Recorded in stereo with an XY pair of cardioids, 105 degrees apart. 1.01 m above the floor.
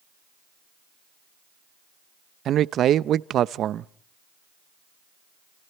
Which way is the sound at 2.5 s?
65° right.